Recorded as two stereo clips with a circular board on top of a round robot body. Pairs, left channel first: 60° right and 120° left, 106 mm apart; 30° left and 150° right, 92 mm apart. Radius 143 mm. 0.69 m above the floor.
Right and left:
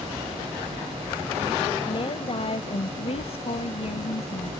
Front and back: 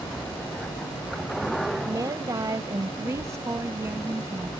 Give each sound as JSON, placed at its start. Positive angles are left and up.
{"t": 1.9, "sound": "a woman speaking", "azimuth_deg": -100}